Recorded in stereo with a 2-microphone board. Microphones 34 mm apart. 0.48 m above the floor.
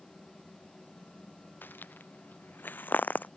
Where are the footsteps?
85° left; by 3.3 s 65° left (ahead or behind).